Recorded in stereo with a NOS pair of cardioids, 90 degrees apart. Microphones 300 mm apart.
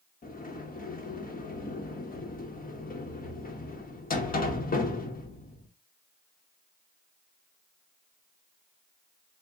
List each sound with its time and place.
0.2 s a sliding door: 30° left, 1.2 m